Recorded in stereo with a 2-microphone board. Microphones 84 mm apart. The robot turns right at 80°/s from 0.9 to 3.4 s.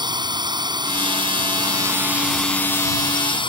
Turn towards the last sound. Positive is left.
turn(degrees=85)